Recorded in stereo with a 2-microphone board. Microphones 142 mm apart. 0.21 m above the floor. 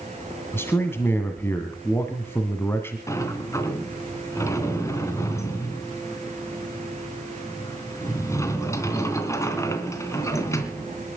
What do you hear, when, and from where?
0.5 s a man speaking: 15° left (ahead or behind), 1.8 m
3.1 s a sliding door: 20° left (ahead or behind), 2.5 m